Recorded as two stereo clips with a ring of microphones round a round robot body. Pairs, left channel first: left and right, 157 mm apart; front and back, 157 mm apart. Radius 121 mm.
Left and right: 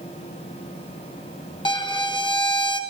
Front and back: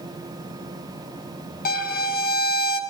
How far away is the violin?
About 1.4 m.